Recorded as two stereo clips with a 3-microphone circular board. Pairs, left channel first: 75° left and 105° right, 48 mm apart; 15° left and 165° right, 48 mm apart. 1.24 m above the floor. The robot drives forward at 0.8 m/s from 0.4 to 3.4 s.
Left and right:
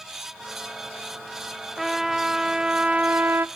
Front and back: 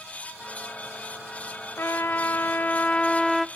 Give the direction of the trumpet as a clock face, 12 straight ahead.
1 o'clock.